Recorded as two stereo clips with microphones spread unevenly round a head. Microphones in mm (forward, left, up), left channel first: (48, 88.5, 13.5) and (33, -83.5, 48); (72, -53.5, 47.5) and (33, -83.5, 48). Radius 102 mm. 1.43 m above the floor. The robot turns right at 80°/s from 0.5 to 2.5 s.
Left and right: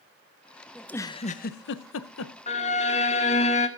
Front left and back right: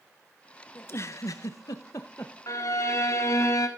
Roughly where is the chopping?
No chopping in this recording.